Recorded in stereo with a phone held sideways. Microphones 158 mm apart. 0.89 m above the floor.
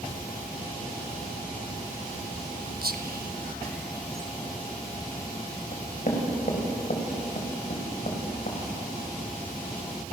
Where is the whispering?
75° right (ahead or behind), 1.1 m.